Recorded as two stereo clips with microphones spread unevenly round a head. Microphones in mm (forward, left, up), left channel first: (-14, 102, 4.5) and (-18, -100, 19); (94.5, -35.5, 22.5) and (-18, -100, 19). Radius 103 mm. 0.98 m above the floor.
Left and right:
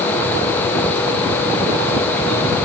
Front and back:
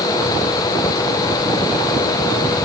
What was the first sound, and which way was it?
Only background noise.